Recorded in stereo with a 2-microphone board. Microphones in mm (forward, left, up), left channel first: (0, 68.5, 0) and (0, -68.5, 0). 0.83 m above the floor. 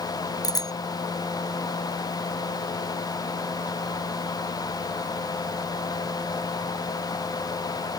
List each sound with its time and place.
0.4 s a bicycle bell: 30° left (ahead or behind)